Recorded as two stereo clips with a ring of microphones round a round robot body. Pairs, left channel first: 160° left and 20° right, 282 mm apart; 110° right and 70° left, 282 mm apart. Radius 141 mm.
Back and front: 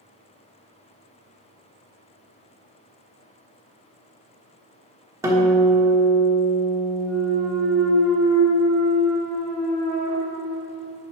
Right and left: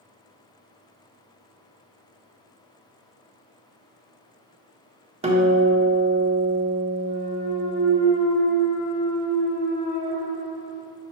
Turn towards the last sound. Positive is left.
turn(degrees=-115)